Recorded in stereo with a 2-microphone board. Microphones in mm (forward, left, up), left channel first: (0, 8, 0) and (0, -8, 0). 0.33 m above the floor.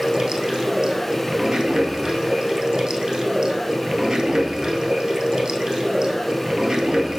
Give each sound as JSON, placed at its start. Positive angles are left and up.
{"t": 0.0, "sound": "running water", "side_deg": -50, "distance_m": 0.9}